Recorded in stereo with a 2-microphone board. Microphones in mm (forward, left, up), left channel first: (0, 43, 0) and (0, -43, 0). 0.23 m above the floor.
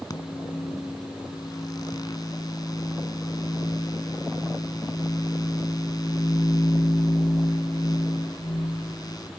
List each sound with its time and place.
0.1 s a microwave: 50° left (ahead or behind), 1.7 m